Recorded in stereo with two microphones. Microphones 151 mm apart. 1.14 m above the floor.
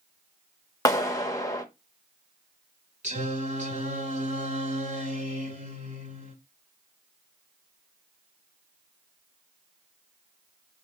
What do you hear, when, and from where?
0.8 s a clap: 20° left (ahead or behind), 1.0 m
3.0 s singing: 55° right (ahead or behind), 3 m